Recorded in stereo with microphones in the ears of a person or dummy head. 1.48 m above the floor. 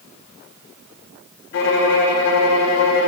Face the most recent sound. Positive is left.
turn(degrees=70)  # may be behind; listen again after turning